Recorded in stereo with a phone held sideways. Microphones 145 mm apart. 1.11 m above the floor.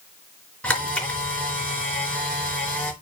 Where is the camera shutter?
10° left (ahead or behind), 4 m.